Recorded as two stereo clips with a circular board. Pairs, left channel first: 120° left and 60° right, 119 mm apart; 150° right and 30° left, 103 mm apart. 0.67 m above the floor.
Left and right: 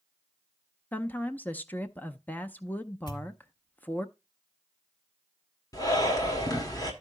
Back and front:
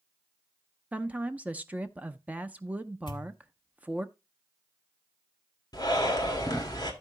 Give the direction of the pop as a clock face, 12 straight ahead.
6 o'clock.